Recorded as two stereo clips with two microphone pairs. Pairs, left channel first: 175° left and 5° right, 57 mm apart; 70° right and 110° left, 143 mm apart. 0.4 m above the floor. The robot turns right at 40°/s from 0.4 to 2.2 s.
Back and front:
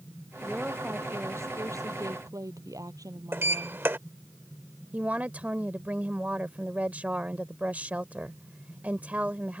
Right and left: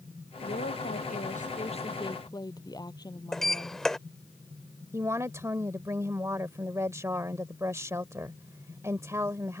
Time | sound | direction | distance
0.4 | a woman speaking | 80° right | ?
3.3 | a sliding door | 15° left | ?
4.9 | a woman speaking | 50° left | ?